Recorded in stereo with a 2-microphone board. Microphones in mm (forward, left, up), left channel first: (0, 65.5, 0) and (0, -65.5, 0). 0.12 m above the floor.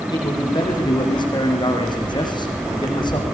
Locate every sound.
0.1 s a man speaking: 35° left (ahead or behind), 6 m